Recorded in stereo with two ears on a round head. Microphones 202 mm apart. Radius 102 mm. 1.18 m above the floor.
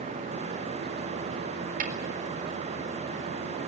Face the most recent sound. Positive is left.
turn(degrees=-40)  # may be behind; listen again after turning